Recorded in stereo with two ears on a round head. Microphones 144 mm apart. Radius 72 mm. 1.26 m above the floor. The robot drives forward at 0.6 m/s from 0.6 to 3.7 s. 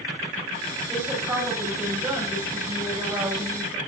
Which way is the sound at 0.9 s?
10° right (ahead or behind).